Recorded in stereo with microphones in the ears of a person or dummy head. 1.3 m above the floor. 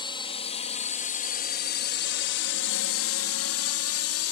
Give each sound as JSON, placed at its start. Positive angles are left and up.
{"t": 0.0, "sound": "a drone", "side_deg": 25}